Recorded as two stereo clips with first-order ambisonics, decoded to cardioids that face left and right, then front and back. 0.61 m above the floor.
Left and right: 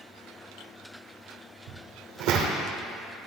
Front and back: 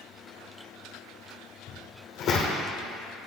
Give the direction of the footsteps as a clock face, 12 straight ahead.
2 o'clock.